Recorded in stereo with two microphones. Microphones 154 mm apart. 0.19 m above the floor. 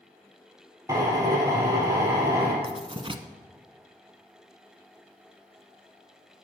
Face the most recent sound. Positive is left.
turn(degrees=-35)  # may be behind; listen again after turning